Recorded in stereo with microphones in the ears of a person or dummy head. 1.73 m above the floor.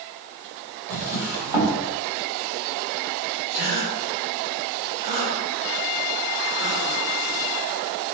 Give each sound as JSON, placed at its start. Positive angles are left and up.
{"t": 0.9, "sound": "a drawer", "side_deg": -20, "distance_m": 1.2}
{"t": 3.5, "sound": "a gasp", "side_deg": -40, "distance_m": 1.7}